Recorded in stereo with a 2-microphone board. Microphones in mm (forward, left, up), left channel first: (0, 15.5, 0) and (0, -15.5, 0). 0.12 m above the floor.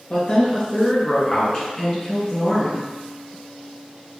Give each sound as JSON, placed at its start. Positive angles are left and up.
{"t": 0.1, "sound": "a woman speaking", "side_deg": 25, "distance_m": 1.7}